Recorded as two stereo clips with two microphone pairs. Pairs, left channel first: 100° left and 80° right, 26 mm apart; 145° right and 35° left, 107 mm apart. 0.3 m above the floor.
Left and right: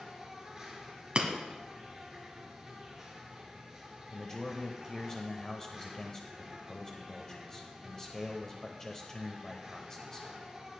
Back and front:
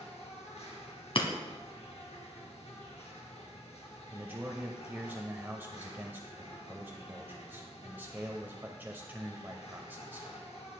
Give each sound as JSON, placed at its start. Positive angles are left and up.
{"t": 0.0, "sound": "an insect", "azimuth_deg": -150, "distance_m": 2.5}
{"t": 1.1, "sound": "breaking glass", "azimuth_deg": -125, "distance_m": 1.5}
{"t": 4.1, "sound": "a man speaking", "azimuth_deg": 75, "distance_m": 1.0}